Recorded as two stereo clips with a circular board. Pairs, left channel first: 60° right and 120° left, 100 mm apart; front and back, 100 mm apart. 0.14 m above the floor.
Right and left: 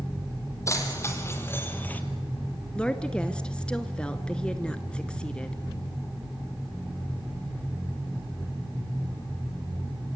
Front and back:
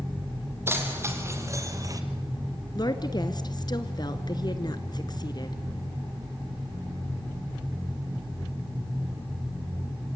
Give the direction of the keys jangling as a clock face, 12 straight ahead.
4 o'clock.